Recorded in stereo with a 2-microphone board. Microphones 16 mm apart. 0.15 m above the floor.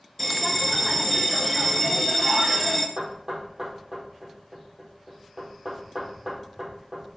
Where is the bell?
5° left (ahead or behind), 0.8 m.